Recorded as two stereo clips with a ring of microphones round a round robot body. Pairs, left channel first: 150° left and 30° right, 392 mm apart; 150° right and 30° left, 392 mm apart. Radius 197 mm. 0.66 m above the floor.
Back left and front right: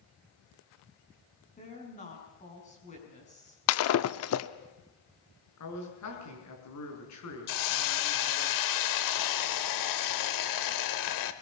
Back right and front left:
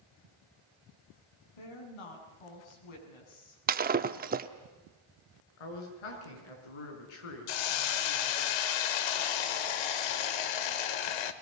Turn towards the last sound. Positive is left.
turn(degrees=-170)